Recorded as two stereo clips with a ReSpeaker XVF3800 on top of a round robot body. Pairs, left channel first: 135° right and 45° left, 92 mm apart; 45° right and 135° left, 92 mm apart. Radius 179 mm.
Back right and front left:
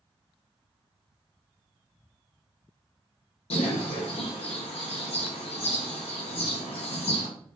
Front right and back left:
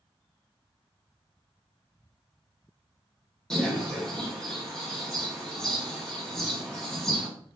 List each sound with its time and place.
3.5 s a bird: 130° right, 0.8 m